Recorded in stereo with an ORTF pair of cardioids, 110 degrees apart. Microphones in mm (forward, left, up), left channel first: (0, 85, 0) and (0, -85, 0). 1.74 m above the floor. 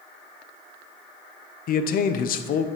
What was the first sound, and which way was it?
A man speaking, 60° left.